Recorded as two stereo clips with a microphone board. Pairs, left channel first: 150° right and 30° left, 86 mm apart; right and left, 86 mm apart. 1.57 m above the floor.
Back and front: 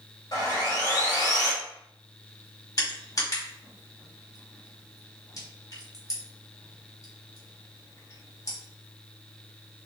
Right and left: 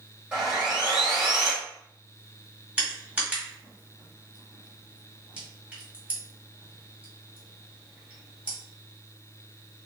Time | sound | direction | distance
0.3 | sawing | 165° left | 2.5 m
2.8 | crushing | 160° left | 2 m